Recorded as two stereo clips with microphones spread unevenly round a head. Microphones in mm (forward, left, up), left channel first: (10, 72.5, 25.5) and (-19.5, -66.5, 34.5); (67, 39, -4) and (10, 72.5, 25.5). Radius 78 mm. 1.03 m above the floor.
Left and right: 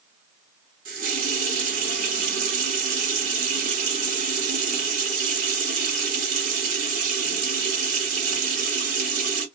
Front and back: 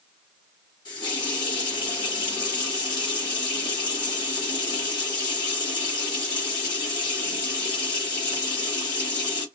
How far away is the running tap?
About 1.3 m.